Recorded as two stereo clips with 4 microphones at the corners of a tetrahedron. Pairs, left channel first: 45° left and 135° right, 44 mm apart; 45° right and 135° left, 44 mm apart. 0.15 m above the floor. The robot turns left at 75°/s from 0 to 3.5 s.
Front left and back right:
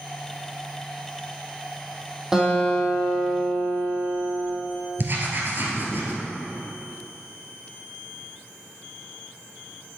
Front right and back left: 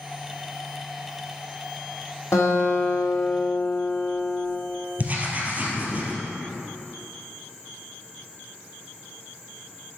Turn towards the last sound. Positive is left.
turn(degrees=-170)